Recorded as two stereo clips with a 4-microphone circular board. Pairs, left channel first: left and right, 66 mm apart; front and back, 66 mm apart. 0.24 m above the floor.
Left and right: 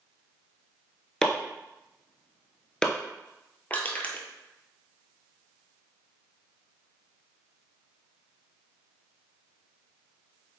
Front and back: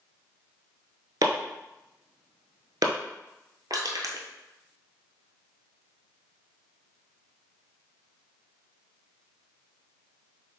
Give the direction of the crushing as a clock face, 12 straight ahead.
7 o'clock.